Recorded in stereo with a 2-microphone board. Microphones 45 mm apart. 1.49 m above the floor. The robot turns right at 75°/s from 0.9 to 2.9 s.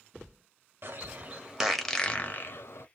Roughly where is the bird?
Right.